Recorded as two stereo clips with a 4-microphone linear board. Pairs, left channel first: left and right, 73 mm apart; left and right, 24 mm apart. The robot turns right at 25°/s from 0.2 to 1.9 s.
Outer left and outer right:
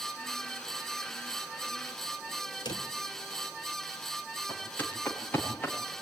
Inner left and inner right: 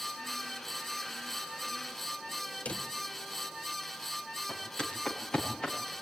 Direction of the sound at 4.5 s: 25° left (ahead or behind).